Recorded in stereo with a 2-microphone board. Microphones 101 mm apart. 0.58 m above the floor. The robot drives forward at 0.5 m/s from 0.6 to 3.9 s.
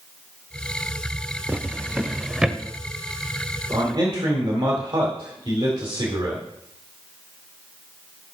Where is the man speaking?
55° right (ahead or behind), 2.0 m; by 6.5 s 50° right (ahead or behind), 2 m.